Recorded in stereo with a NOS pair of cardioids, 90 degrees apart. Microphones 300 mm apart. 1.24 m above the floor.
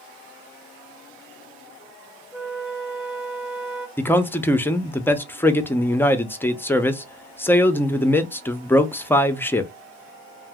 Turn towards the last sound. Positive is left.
turn(degrees=10)